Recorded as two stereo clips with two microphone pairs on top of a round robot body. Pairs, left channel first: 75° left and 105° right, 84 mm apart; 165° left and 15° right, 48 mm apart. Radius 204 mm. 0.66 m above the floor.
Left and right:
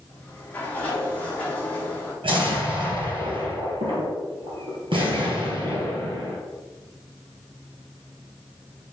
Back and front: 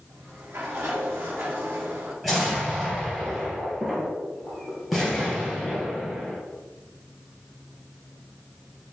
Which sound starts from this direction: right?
An explosion, at 2.2 s.